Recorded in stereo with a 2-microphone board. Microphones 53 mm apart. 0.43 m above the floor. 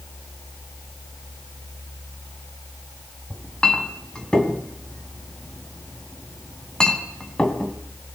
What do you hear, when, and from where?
3.3 s a clink: 15° left (ahead or behind), 2.5 m